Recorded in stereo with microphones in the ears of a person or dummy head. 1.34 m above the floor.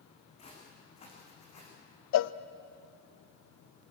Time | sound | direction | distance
0.4 | footsteps | 35° left (ahead or behind) | 5 m
2.1 | a cowbell | 70° left (ahead or behind) | 0.5 m